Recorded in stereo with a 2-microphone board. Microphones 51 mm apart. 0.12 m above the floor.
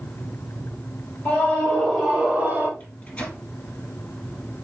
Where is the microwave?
25° left (ahead or behind), 2 m.